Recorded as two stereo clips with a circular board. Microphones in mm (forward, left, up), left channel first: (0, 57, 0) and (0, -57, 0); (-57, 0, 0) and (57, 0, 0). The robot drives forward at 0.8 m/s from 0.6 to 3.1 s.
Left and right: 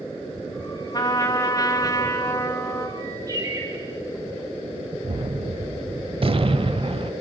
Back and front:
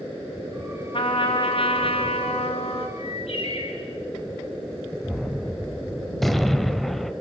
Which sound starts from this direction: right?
A gunshot, at 5.0 s.